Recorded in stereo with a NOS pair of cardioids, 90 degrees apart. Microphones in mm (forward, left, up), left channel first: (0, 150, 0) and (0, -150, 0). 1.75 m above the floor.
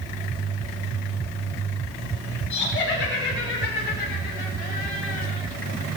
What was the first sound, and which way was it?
Laughter, 40° left.